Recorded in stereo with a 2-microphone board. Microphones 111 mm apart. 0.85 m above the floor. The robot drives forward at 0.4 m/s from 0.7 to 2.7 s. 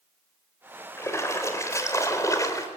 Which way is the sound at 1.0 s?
25° left (ahead or behind).